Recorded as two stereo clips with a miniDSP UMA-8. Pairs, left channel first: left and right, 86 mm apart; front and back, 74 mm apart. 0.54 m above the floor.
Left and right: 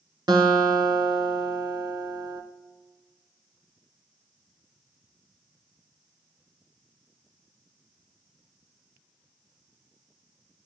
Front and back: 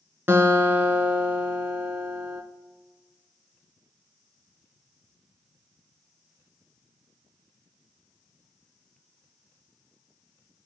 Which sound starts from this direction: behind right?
A guitar, at 0.3 s.